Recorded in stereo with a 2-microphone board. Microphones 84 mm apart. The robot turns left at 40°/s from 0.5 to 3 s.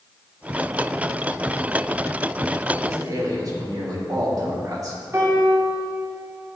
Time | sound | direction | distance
2.8 | a man speaking | 40° right (ahead or behind) | 3 m
5.1 | a piano | 35° right (ahead or behind) | 2.5 m